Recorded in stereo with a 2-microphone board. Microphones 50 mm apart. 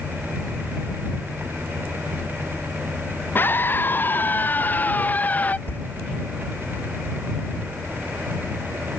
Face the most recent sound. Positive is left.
turn(degrees=45)  # may be behind; listen again after turning